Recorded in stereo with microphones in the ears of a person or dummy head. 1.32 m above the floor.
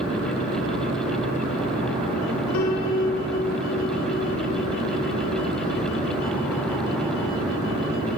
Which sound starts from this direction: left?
A piano, at 2.5 s.